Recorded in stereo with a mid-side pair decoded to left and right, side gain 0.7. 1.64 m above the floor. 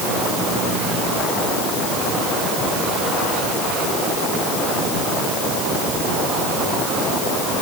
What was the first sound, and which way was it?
Only background noise.